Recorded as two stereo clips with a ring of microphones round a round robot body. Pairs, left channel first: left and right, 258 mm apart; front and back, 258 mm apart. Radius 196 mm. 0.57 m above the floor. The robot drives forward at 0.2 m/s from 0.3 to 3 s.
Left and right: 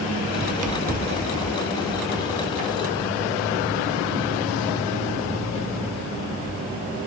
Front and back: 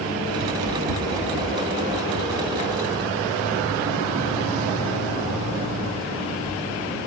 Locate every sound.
0.4 s running footsteps: 130° right, 0.6 m; by 6.6 s 150° right, 10.5 m